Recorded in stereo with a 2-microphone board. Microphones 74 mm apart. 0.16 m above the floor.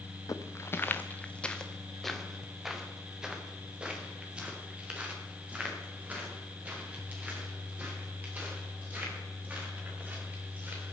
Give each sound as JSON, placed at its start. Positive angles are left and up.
{"t": 0.3, "sound": "footsteps", "side_deg": 45, "distance_m": 0.9}